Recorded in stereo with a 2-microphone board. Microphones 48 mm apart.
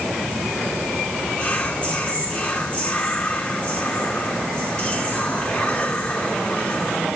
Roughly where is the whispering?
Left.